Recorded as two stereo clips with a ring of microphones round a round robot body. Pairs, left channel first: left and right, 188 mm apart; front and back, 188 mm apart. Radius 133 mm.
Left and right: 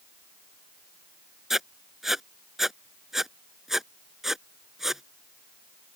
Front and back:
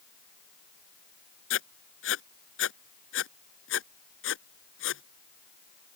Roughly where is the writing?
Ahead.